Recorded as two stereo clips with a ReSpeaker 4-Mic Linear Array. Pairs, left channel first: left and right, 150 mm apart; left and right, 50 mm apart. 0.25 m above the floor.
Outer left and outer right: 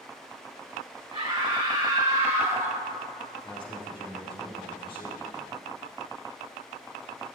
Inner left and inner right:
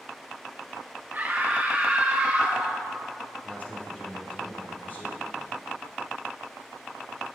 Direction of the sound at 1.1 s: 35° right (ahead or behind).